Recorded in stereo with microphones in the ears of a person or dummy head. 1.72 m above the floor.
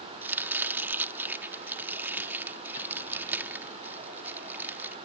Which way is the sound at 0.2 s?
10° right (ahead or behind).